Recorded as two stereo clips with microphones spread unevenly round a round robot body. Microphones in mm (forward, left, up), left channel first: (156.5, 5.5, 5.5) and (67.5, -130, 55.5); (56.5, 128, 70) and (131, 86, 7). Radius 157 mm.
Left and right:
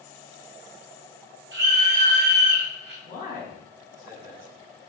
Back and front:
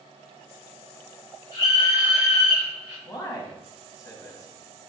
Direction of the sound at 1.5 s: 135° right.